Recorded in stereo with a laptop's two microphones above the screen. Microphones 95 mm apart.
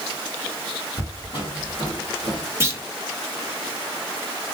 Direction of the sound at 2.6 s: 25° right (ahead or behind).